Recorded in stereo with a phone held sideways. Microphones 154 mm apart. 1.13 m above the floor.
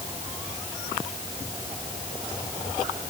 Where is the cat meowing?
I don't hear a cat meowing.